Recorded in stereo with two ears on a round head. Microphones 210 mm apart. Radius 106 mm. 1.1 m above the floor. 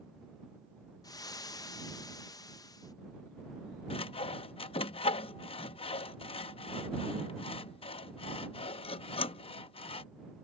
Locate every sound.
1.0 s frying: 15° left (ahead or behind)
3.9 s sawing: 25° left (ahead or behind)